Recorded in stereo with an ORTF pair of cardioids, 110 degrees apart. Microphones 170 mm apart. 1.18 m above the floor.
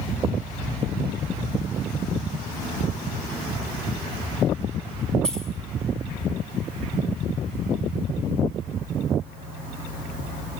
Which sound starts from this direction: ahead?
Keys jangling, at 5.2 s.